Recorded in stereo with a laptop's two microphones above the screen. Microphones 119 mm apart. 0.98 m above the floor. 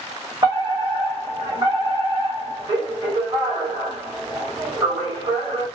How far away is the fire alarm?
About 1.8 m.